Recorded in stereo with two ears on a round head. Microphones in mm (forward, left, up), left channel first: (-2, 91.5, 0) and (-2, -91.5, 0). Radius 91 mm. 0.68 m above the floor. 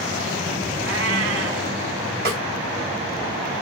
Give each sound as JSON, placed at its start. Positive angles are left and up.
{"t": 0.8, "sound": "a cat meowing", "side_deg": -60, "distance_m": 1.9}
{"t": 2.2, "sound": "a snare drum", "side_deg": -50, "distance_m": 3.0}